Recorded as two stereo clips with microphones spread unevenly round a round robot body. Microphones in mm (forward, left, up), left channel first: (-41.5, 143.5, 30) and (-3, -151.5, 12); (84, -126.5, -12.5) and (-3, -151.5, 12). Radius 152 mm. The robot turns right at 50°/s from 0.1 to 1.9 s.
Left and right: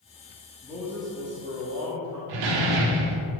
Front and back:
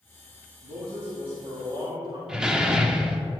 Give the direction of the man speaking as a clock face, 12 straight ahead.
6 o'clock.